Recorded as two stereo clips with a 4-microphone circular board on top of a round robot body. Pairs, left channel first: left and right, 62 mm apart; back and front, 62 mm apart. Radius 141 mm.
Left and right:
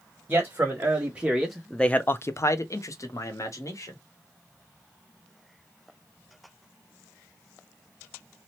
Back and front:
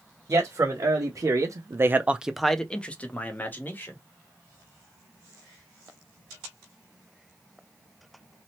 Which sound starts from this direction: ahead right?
A man speaking, at 0.3 s.